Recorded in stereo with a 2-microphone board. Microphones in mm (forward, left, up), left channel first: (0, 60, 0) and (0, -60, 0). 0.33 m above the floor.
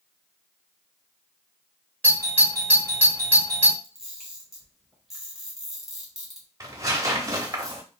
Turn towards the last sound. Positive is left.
turn(degrees=-30)  # may be behind; listen again after turning